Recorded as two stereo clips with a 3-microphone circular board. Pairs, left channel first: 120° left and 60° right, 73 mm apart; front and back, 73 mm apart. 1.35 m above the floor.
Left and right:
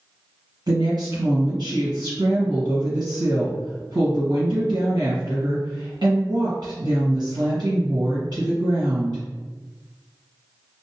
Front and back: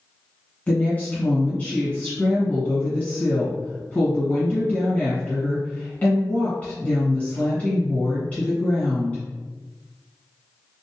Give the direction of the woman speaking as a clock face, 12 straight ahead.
2 o'clock.